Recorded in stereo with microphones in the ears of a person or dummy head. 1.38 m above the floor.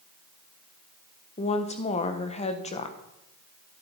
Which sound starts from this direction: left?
A woman speaking, at 1.4 s.